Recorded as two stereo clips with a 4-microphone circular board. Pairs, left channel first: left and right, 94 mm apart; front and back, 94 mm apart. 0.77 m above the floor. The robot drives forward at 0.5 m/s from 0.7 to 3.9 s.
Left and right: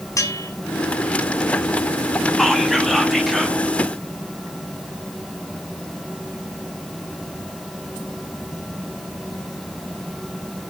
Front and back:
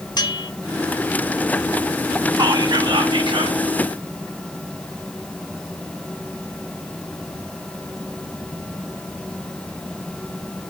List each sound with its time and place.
0.2 s a bell: 40° left, 1.5 m
2.4 s whispering: straight behind, 1.4 m